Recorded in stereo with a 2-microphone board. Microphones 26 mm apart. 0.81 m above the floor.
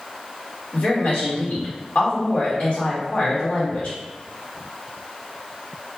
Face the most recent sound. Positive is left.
turn(degrees=55)  # may be behind; listen again after turning